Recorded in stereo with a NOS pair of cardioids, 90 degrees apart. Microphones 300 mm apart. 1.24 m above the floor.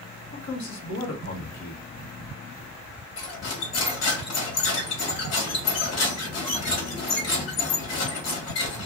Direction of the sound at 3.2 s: 60° left.